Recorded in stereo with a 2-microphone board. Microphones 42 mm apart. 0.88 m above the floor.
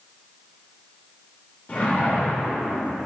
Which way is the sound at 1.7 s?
35° left (ahead or behind).